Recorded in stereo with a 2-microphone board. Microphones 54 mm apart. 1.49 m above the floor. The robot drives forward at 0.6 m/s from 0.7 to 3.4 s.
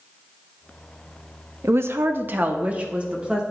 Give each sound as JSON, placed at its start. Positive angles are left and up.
{"t": 1.6, "sound": "a woman speaking", "side_deg": -55, "distance_m": 0.5}